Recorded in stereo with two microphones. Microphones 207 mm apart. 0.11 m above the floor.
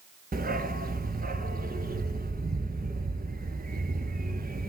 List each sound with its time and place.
0.3 s a dog barking: 45° right (ahead or behind), 0.9 m